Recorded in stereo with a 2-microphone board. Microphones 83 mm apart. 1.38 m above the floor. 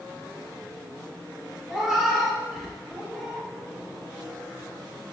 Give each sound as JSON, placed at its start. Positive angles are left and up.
{"t": 1.7, "sound": "a cat meowing", "side_deg": 0, "distance_m": 0.8}